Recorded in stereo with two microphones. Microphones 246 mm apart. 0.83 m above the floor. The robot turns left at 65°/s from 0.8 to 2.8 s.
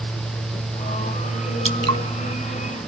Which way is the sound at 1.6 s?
55° right (ahead or behind).